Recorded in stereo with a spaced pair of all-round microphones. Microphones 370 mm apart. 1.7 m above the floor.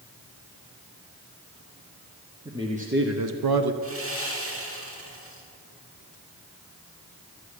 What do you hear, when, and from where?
2.5 s a man speaking: 5° right (ahead or behind), 1.2 m; by 3.7 s 85° right, 0.8 m
3.8 s sawing: 35° right (ahead or behind), 2.5 m